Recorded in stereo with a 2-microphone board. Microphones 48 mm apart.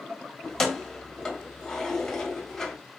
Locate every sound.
0.4 s keys jangling: 5° left (ahead or behind), 1.1 m